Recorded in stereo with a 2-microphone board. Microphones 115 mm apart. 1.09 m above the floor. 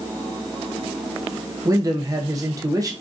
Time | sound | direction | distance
1.6 | a man speaking | 30° right (ahead or behind) | 0.6 m